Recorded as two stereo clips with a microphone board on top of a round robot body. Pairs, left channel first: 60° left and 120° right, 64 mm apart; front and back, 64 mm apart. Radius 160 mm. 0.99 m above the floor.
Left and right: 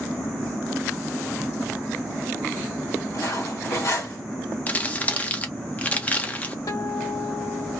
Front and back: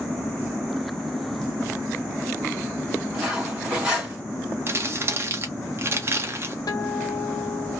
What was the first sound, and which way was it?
Cutlery clinking, 105° left.